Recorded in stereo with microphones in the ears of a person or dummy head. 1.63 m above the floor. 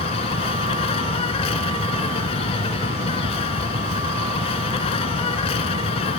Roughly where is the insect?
Left.